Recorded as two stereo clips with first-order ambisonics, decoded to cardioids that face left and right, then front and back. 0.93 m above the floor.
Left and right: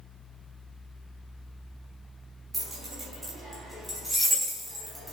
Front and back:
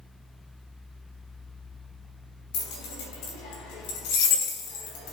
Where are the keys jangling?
15° right, 5 m; by 5.1 s straight ahead, 3.5 m.